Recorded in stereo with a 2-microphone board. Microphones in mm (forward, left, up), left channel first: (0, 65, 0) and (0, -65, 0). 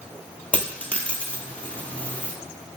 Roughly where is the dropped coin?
Centre.